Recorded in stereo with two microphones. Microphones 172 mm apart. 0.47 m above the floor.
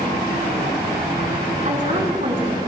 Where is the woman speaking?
50° right (ahead or behind), 4 m.